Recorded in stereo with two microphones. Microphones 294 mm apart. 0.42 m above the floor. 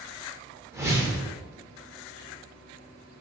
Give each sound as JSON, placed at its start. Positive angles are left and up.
{"t": 0.7, "sound": "a whoosh", "side_deg": -10, "distance_m": 0.8}